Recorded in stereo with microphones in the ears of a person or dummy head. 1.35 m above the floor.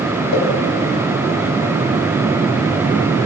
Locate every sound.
0.3 s a pop: 80° left, 5.5 m